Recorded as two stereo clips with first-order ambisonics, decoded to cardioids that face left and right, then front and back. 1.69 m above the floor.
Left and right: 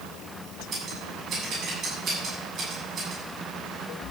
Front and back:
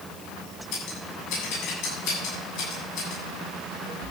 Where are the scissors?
25° right, 7.5 m.